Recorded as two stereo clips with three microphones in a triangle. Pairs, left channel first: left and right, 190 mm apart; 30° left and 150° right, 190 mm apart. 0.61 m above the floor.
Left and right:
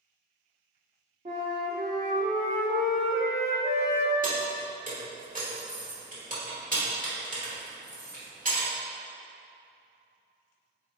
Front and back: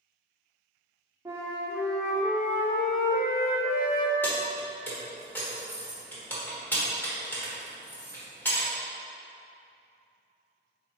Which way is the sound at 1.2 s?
80° right.